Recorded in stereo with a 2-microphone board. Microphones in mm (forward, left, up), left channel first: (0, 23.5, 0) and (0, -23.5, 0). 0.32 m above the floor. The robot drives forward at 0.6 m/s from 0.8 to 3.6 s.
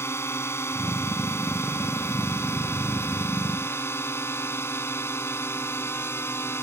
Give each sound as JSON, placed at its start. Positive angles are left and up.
{"t": 0.0, "sound": "a drone", "side_deg": 60}